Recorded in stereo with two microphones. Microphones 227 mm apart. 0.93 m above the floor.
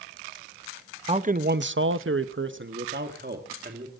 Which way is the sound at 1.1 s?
25° right (ahead or behind).